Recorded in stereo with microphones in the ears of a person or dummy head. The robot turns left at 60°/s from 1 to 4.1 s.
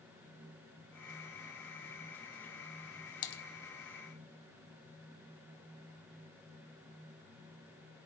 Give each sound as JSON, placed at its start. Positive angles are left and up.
{"t": 3.2, "sound": "typing on a keyboard", "side_deg": 40, "distance_m": 1.3}